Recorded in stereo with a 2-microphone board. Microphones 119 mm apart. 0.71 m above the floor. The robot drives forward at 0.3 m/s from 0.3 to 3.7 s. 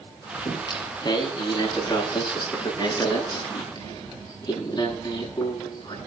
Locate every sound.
0.5 s singing: 35° left (ahead or behind), 9.5 m; by 6.0 s 30° left (ahead or behind), 10 m